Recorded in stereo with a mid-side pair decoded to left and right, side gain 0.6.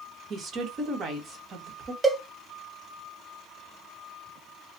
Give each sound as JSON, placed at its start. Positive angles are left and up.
{"t": 0.3, "sound": "a woman speaking", "azimuth_deg": -45, "distance_m": 1.1}
{"t": 2.0, "sound": "a cowbell", "azimuth_deg": -15, "distance_m": 0.8}